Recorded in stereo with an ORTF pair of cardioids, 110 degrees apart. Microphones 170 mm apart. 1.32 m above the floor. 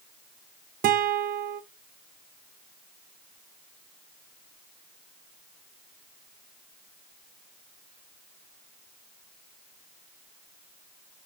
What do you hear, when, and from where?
0.8 s a guitar: 60° right, 0.9 m